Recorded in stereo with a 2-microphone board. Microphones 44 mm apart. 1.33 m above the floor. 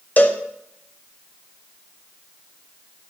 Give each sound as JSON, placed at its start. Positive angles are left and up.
{"t": 0.2, "sound": "a cowbell", "side_deg": 35, "distance_m": 0.7}